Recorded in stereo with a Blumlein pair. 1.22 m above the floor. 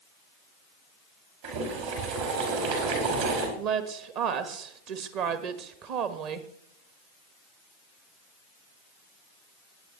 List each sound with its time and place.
1.4 s boiling: 50° right, 4 m
3.6 s a woman speaking: 40° right, 1.4 m